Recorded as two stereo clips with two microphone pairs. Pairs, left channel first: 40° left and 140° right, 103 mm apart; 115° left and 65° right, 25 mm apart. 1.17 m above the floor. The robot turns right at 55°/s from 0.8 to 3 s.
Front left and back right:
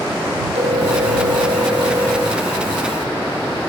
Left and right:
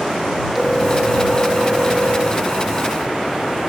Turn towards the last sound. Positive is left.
turn(degrees=-30)